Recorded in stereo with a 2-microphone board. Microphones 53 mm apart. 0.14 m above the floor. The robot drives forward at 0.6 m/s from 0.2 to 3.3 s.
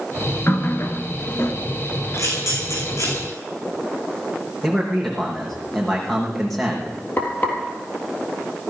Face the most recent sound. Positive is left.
turn(degrees=40)  # may be behind; listen again after turning